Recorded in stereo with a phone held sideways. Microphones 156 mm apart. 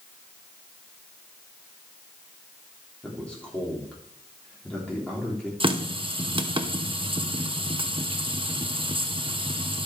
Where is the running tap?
35° right (ahead or behind), 0.8 m.